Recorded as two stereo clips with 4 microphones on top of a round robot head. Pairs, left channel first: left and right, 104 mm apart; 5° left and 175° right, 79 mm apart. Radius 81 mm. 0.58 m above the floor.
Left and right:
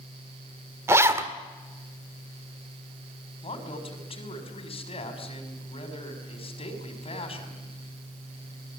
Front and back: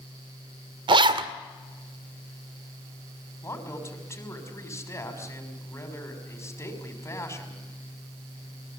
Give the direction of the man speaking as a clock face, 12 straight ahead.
10 o'clock.